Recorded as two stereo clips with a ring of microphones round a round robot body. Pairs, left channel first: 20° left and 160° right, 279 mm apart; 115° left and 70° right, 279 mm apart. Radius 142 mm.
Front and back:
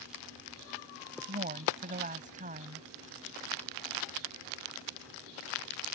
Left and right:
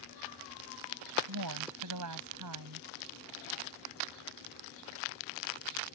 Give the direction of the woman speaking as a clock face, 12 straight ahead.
3 o'clock.